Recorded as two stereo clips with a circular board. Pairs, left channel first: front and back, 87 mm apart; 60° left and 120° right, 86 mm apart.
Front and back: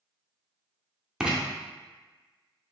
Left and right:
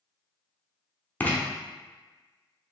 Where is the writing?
110° left, 0.6 m.